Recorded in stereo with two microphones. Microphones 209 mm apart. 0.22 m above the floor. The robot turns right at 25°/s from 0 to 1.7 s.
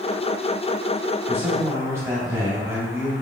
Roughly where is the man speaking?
Centre.